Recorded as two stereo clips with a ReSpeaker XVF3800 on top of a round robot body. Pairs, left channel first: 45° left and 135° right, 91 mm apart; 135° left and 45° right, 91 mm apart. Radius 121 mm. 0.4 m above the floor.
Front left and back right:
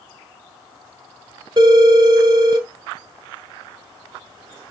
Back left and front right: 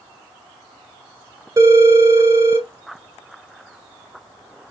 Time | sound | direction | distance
1.6 | a phone ringing | 100° right | 1.3 m